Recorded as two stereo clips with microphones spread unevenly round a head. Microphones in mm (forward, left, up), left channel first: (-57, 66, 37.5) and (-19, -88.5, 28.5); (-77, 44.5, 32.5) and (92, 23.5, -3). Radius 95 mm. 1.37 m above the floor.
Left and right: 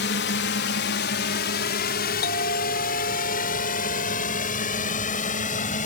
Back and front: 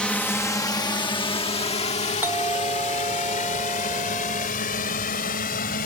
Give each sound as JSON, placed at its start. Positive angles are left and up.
{"t": 0.0, "sound": "a drone", "azimuth_deg": 85}
{"t": 2.2, "sound": "a doorbell", "azimuth_deg": 70}